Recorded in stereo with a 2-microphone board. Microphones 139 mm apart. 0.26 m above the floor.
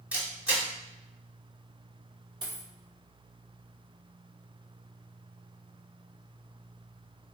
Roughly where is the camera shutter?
Centre.